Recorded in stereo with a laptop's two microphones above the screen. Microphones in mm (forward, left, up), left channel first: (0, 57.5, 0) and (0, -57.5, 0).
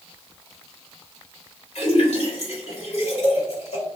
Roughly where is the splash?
Left.